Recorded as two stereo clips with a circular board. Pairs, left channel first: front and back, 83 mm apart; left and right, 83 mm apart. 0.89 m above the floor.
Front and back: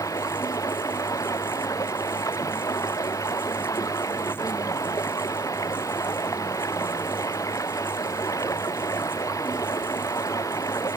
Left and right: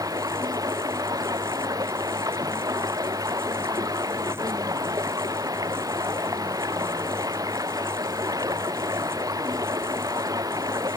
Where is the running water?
50° right.